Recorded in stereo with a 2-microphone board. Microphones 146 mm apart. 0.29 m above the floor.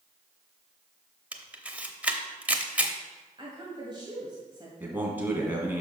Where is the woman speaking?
35° right (ahead or behind), 1.8 m.